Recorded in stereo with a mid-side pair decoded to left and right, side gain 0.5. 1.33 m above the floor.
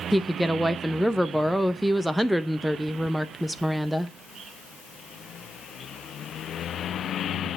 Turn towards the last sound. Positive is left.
turn(degrees=-10)